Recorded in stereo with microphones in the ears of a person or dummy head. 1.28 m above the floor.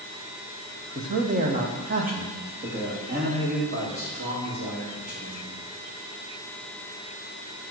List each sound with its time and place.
0.9 s a man speaking: 35° right (ahead or behind), 1.1 m; by 5.6 s 50° right (ahead or behind), 5 m